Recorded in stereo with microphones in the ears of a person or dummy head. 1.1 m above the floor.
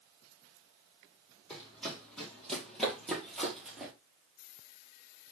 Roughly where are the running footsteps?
Centre.